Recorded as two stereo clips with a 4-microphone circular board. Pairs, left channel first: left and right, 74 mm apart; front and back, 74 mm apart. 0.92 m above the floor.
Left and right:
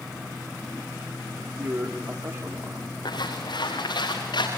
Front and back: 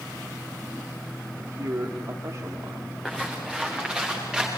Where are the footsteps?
95° left, 5.5 m; by 4.5 s 100° left, 7.5 m.